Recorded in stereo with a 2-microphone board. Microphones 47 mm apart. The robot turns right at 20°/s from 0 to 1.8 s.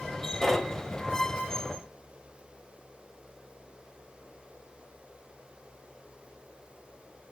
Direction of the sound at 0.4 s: 5° left (ahead or behind).